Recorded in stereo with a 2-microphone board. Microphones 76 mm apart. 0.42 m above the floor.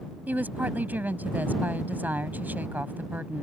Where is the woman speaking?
25° right (ahead or behind).